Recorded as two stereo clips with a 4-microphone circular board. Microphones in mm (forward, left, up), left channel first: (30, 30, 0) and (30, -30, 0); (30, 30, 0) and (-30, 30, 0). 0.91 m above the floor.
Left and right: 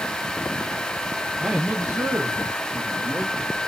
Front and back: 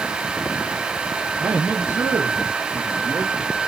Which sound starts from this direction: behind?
A man speaking, at 1.4 s.